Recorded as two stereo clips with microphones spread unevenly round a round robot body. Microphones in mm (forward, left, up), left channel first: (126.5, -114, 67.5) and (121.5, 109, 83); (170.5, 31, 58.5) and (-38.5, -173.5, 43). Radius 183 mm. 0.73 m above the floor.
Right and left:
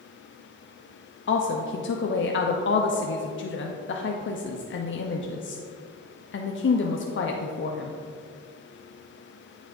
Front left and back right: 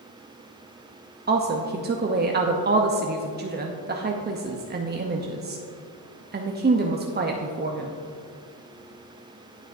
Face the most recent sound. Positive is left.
turn(degrees=-85)